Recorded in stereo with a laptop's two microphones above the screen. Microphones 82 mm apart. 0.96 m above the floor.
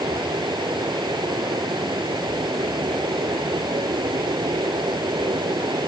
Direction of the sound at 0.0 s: 65° right (ahead or behind).